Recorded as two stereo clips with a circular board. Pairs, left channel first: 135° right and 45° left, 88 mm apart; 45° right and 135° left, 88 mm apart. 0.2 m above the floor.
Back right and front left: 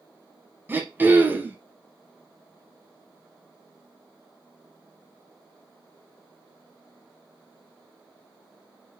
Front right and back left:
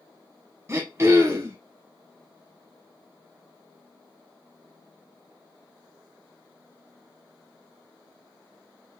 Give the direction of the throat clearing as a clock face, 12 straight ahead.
9 o'clock.